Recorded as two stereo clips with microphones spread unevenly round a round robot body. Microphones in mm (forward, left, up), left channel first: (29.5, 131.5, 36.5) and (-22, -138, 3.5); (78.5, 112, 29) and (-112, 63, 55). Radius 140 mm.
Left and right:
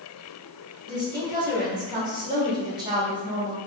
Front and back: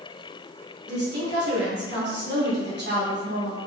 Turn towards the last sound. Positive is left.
turn(degrees=-160)